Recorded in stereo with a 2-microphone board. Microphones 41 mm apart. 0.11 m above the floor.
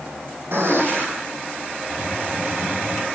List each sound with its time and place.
0.5 s a gunshot: 70° right (ahead or behind), 3 m
1.9 s a hiss: 60° right (ahead or behind), 2.5 m